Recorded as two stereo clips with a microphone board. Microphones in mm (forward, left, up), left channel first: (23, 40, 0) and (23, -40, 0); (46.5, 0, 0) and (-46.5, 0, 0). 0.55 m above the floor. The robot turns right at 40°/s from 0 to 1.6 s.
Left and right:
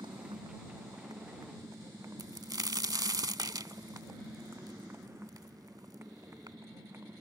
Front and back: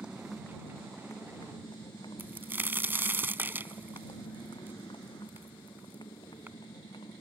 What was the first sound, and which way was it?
A motorcycle, 105° right.